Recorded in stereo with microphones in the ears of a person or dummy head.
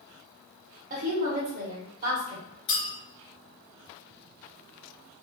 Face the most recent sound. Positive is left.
turn(degrees=35)  # may be behind; listen again after turning